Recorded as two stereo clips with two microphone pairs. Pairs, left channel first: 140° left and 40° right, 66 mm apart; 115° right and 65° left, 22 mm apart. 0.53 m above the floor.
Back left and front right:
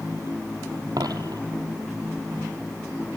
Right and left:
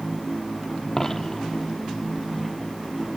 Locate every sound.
1.0 s a dropped coin: 40° right, 1.7 m